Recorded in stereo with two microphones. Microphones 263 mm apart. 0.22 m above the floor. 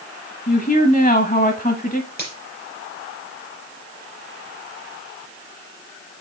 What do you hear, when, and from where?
0.5 s a woman speaking: 30° left (ahead or behind), 1.1 m
2.2 s a finger snap: 35° left (ahead or behind), 5 m